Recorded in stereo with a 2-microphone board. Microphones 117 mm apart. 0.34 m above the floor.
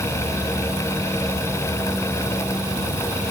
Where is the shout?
I don't hear a shout.